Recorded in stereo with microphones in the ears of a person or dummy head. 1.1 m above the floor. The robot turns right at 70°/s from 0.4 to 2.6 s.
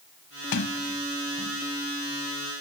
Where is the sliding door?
80° left; by 1.6 s 5° left (ahead or behind).